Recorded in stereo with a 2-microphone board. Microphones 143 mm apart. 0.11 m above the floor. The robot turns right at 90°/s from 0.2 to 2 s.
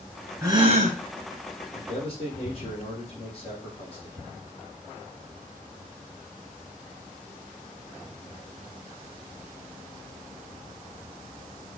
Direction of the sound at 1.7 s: 65° left (ahead or behind).